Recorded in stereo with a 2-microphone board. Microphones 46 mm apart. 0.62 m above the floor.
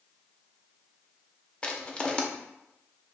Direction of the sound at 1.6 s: 25° left (ahead or behind).